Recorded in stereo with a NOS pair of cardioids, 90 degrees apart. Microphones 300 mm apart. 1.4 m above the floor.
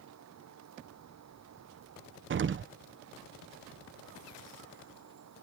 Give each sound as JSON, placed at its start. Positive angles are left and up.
{"t": 0.0, "sound": "a fan", "azimuth_deg": -60}
{"t": 2.3, "sound": "an explosion", "azimuth_deg": -40}